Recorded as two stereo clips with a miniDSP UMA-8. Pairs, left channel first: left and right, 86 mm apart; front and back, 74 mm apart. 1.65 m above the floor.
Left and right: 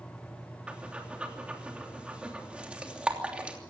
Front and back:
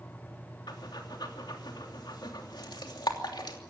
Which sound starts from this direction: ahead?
Breathing, at 0.7 s.